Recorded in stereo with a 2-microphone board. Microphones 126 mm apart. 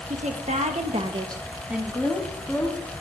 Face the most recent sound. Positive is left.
turn(degrees=15)  # may be behind; listen again after turning